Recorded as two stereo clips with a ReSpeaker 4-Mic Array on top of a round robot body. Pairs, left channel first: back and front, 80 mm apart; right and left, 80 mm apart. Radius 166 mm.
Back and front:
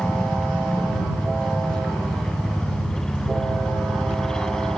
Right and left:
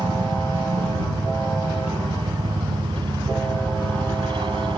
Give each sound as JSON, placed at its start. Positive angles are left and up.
{"t": 0.0, "sound": "a helicopter", "azimuth_deg": 95}